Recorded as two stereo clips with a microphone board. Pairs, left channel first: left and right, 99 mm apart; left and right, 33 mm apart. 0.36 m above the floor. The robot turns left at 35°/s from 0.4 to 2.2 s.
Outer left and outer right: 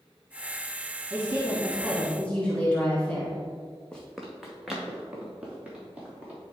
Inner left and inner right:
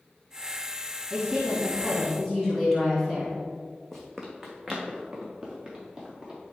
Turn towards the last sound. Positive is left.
turn(degrees=-15)  # may be behind; listen again after turning